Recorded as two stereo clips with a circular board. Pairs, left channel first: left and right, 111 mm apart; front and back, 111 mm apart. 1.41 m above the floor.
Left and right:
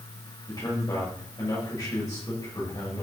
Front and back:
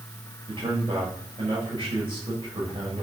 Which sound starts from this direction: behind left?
A man speaking, at 0.5 s.